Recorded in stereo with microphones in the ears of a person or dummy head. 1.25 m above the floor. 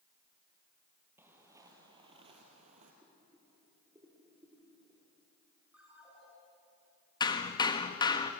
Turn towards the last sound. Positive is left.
turn(degrees=30)  # may be behind; listen again after turning